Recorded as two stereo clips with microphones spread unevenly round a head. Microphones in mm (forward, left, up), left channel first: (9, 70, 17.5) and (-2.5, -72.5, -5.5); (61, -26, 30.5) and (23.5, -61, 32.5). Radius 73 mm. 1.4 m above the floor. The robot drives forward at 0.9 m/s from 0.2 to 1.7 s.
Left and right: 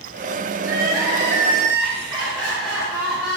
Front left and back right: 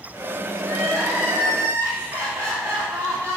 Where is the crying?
170° left, 3 m; by 3.4 s 175° left, 4 m.